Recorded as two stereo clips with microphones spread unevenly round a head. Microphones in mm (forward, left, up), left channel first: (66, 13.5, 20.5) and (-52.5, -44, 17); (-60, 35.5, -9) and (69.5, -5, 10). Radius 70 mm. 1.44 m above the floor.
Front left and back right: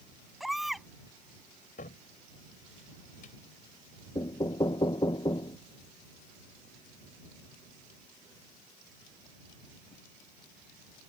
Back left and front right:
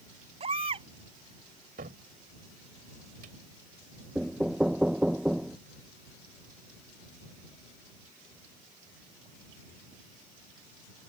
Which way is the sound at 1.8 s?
Straight ahead.